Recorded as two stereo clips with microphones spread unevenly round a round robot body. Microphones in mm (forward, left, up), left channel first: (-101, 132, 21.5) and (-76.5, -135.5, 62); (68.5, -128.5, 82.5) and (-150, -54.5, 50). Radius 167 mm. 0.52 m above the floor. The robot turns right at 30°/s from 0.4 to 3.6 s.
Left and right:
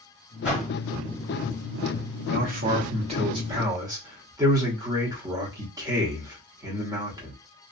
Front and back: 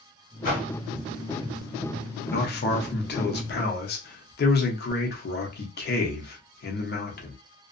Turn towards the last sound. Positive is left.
turn(degrees=-5)